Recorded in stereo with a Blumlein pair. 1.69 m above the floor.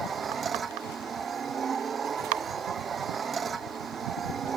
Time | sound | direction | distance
0.0 | a machine running | 20° right | ?